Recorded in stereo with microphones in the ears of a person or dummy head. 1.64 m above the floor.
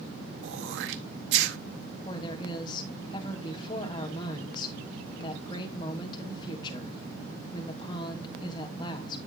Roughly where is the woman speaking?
Left.